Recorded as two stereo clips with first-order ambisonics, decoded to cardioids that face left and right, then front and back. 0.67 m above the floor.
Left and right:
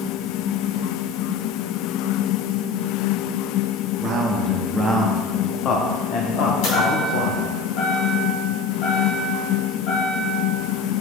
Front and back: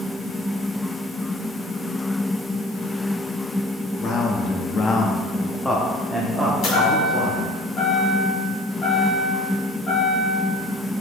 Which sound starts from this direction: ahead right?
A man speaking, at 4.0 s.